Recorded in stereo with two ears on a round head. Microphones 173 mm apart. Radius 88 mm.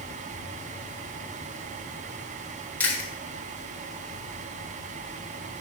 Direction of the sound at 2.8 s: 10° left (ahead or behind).